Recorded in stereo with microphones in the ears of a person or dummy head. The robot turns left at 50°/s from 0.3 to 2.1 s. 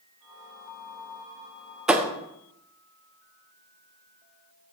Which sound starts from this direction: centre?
A thud, at 1.9 s.